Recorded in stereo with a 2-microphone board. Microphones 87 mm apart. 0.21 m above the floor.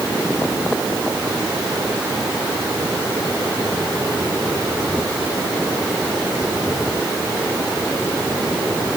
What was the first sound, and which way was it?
Only background noise.